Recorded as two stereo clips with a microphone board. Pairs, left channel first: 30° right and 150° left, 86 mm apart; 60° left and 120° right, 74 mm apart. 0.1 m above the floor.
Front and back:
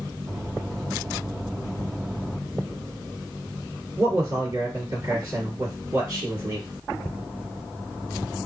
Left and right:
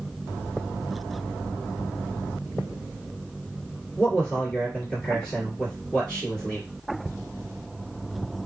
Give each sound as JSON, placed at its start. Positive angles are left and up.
{"t": 4.0, "sound": "a man speaking", "azimuth_deg": 135, "distance_m": 2.0}